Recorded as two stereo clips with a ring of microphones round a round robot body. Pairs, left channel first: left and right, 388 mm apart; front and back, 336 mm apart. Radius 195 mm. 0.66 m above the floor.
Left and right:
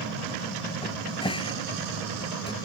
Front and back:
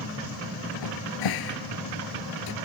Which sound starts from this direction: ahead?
A cupboard door, at 0.8 s.